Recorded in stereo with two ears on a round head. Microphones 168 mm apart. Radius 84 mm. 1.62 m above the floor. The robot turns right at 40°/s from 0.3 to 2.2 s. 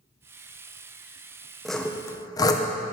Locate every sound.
1.6 s sawing: centre (ahead or behind), 0.8 m; by 2.6 s 20° left (ahead or behind), 0.8 m